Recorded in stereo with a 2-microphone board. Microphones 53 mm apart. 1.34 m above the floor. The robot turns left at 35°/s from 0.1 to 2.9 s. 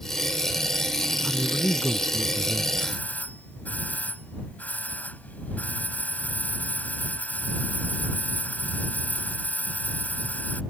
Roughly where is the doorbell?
Left.